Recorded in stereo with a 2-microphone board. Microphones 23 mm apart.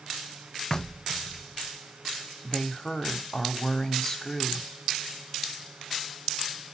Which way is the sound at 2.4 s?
20° left (ahead or behind).